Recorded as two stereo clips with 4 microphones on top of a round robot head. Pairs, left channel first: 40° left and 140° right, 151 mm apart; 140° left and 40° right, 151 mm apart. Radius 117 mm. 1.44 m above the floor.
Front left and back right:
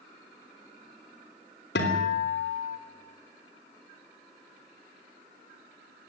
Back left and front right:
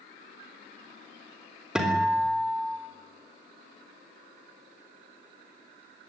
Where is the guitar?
45° left, 3.5 m.